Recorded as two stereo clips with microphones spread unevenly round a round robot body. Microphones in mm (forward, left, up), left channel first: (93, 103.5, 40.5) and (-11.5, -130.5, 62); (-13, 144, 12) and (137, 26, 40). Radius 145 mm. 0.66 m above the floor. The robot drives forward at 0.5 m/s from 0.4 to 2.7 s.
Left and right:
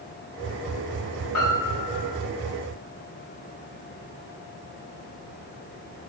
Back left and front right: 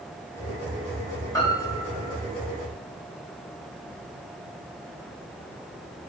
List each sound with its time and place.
1.3 s a piano: 70° left, 4.5 m; by 2.2 s 75° left, 4.5 m